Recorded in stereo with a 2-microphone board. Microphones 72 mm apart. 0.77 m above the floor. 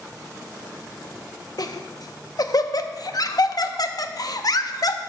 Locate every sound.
1.6 s laughter: 55° left (ahead or behind), 0.6 m